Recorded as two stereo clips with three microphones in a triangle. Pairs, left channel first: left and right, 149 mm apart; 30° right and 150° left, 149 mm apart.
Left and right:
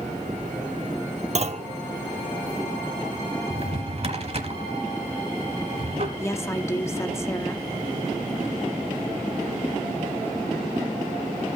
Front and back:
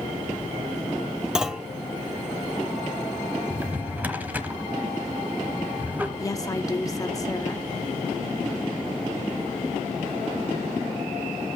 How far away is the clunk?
About 0.6 m.